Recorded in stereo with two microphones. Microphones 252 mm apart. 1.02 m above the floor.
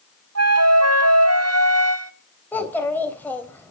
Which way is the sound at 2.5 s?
5° left (ahead or behind).